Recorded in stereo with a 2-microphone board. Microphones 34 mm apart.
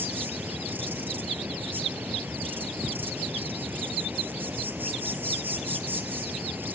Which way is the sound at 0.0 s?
70° right (ahead or behind).